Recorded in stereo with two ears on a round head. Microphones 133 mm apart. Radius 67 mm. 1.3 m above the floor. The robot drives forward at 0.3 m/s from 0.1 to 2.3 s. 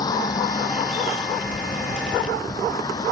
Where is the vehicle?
25° left (ahead or behind).